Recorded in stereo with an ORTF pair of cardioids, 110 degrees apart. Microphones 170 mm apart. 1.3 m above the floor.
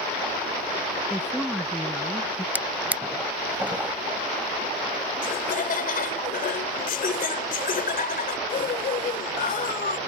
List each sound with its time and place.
1.1 s a woman speaking: straight ahead
2.5 s a drawer: 10° right
5.2 s laughter: 60° left